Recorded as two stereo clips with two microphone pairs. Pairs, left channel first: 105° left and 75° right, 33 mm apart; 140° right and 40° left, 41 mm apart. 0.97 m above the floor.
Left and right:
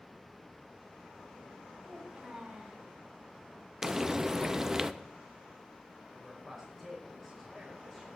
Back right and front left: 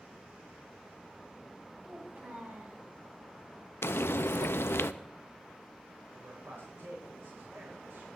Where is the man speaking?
20° left, 5 m.